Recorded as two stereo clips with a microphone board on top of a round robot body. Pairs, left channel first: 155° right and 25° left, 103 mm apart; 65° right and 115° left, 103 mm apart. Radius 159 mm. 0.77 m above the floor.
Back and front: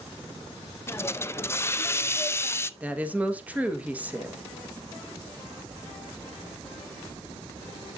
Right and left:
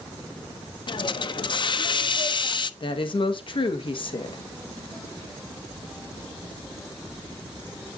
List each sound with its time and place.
0.9 s a hiss: 95° right, 0.7 m
2.8 s a woman speaking: 50° right, 1.4 m